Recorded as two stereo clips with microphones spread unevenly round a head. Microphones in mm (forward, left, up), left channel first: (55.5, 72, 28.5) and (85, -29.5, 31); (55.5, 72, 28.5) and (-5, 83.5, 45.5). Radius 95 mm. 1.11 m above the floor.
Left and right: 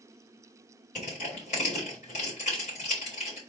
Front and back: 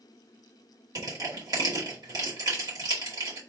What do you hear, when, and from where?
0.9 s crushing: 150° left, 2 m